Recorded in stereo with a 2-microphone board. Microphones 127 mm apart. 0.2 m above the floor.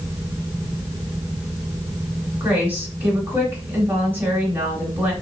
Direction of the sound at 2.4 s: 15° right (ahead or behind).